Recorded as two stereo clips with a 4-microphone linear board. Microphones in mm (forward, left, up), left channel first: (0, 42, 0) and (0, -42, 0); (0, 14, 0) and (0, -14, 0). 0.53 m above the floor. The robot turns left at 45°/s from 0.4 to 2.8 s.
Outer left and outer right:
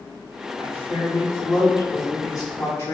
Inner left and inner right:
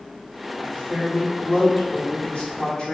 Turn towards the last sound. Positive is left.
turn(degrees=45)